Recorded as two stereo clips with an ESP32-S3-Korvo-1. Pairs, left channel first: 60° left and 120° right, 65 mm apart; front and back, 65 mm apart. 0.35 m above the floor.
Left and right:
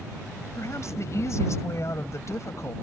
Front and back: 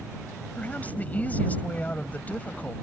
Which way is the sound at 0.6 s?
55° left.